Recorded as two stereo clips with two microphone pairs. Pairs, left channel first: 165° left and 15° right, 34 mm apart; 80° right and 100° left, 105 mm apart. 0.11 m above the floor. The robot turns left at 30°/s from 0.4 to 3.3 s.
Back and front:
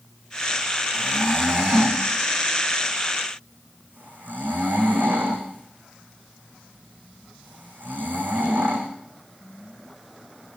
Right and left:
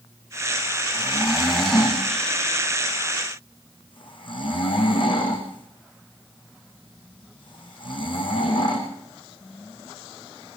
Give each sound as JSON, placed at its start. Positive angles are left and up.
{"t": 0.9, "sound": "snoring", "azimuth_deg": 25, "distance_m": 4.0}